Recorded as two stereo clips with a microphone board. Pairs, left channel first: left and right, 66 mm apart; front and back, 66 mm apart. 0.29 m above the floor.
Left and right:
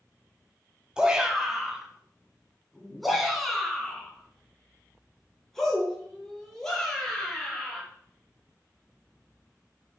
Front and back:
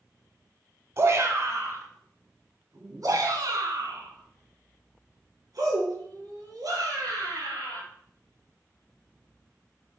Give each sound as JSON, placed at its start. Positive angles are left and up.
{"t": 1.0, "sound": "a shout", "azimuth_deg": -160, "distance_m": 1.5}